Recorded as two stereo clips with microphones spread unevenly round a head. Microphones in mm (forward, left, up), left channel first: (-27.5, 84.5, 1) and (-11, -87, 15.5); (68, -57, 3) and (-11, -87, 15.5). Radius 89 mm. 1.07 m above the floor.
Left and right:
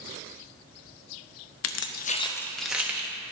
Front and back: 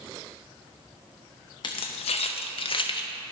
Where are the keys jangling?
85° left, 0.6 m; by 3.1 s 5° right, 1.3 m.